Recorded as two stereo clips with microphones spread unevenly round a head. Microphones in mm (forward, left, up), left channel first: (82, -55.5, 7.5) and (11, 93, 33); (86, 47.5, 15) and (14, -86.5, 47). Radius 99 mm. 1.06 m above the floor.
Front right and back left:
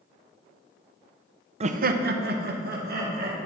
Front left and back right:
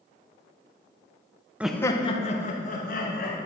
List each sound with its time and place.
1.6 s laughter: 150° left, 0.6 m; by 3.4 s 85° left, 2.5 m